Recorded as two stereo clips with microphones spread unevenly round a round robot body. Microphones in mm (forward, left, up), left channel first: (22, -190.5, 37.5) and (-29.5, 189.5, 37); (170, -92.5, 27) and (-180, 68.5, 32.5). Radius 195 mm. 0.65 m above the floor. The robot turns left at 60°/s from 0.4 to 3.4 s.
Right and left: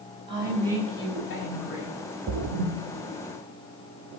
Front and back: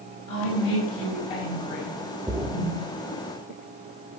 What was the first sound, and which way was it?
A woman speaking, 20° left.